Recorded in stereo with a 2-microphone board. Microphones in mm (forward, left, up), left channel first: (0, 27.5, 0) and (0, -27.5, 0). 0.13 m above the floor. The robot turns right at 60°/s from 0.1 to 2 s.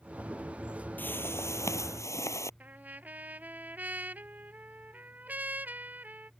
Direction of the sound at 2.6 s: 30° right (ahead or behind).